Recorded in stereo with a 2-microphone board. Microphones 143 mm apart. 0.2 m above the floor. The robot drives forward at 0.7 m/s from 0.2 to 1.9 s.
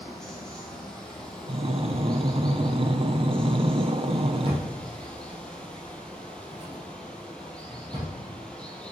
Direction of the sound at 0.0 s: 5° left (ahead or behind).